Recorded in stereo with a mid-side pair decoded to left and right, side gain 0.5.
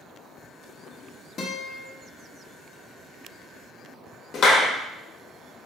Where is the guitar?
50° left, 1.1 m.